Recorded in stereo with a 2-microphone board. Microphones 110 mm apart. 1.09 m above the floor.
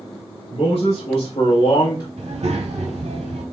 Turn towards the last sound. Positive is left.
turn(degrees=-75)  # may be behind; listen again after turning